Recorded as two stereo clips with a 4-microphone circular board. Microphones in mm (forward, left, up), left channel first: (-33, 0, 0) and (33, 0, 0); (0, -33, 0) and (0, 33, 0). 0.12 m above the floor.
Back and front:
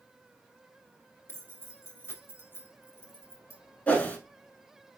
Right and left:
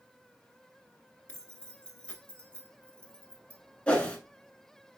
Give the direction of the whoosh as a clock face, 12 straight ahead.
5 o'clock.